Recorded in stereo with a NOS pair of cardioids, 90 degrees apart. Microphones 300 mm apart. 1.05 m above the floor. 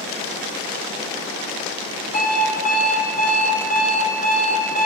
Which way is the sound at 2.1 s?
30° left.